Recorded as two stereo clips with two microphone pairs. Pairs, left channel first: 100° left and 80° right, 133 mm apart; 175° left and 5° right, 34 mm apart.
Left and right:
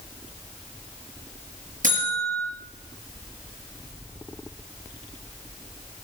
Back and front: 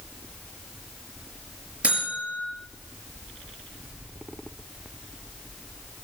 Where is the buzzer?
65° right, 5 m.